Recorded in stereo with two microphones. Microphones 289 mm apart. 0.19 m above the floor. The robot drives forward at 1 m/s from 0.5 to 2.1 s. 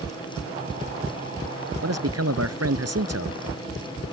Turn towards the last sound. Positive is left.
turn(degrees=-55)  # may be behind; listen again after turning